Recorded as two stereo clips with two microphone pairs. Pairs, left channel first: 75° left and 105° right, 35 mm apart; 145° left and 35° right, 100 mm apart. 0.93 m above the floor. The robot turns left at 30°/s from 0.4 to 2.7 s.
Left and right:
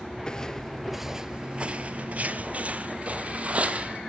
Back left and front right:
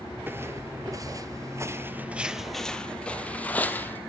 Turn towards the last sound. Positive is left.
turn(degrees=-145)